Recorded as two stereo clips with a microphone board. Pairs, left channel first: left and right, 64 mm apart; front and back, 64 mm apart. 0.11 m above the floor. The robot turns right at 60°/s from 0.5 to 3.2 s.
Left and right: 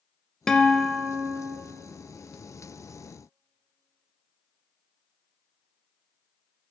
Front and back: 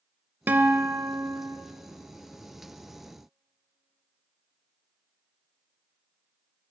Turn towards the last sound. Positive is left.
turn(degrees=-40)